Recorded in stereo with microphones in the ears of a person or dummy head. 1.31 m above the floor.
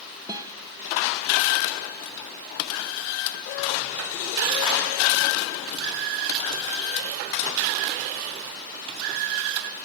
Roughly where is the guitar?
Centre.